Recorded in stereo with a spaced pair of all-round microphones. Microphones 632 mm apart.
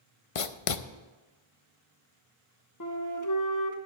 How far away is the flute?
About 1.2 m.